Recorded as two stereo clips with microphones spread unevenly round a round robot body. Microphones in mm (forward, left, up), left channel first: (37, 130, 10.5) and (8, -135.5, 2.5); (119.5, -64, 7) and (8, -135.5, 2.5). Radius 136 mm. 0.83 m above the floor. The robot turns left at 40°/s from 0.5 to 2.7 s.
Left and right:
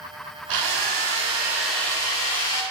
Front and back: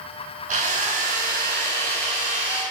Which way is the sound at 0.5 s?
140° right.